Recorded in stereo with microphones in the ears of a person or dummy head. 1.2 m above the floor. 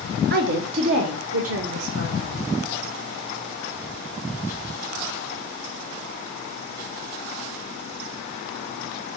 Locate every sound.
0.3 s a woman speaking: 55° right (ahead or behind), 0.7 m; by 2.4 s 65° right (ahead or behind), 2 m